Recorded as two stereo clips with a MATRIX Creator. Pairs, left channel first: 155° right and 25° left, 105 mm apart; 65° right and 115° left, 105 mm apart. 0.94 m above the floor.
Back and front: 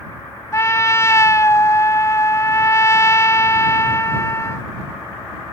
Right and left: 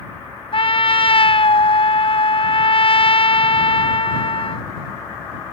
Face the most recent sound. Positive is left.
turn(degrees=-95)